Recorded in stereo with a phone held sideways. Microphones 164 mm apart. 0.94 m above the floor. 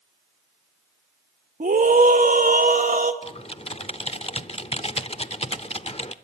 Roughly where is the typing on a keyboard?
Left.